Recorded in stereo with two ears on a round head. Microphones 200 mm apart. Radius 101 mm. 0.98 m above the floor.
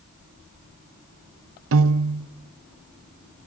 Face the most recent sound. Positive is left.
turn(degrees=-65)  # may be behind; listen again after turning